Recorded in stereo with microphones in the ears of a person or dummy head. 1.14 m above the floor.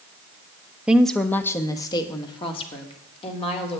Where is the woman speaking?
10° right (ahead or behind), 0.8 m; by 3.8 s 30° left (ahead or behind), 3.5 m.